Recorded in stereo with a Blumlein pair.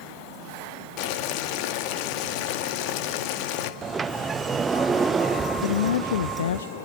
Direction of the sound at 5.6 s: 65° left.